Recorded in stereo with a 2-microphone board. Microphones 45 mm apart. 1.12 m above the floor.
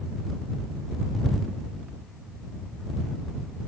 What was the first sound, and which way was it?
Only background noise.